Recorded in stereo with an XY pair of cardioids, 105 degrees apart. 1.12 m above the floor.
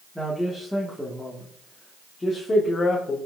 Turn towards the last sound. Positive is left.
turn(degrees=35)